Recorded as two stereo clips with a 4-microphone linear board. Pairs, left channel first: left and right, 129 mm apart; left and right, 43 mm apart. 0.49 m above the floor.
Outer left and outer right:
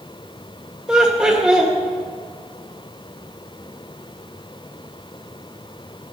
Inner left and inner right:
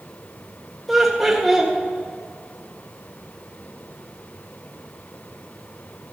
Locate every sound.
0.9 s laughter: 5° right (ahead or behind), 1.5 m